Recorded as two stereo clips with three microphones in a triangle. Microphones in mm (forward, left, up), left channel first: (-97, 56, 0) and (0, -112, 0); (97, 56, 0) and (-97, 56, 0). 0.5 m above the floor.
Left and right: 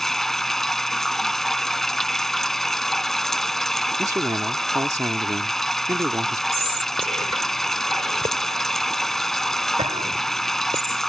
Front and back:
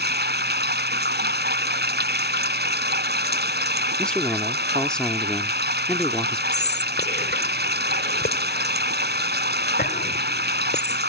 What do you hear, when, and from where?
0.0 s running water: 150° right
4.0 s a man speaking: 75° right
6.5 s whispering: 5° right